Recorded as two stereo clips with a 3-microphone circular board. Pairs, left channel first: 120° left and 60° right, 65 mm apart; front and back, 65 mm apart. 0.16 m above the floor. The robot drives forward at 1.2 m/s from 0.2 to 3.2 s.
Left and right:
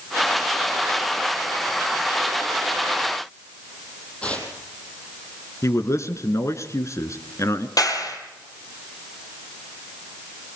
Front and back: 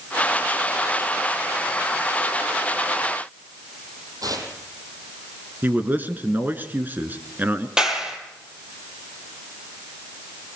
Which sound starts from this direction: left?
A clap, at 7.8 s.